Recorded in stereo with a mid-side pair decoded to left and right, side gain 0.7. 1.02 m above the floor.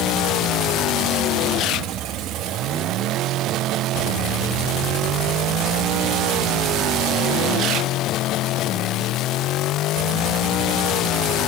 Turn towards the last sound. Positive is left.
No sound to turn to.